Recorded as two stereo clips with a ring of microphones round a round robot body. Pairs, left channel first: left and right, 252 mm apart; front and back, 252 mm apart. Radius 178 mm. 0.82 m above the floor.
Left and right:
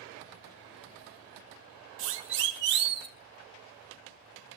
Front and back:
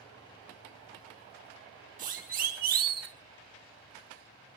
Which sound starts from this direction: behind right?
A siren, at 2.0 s.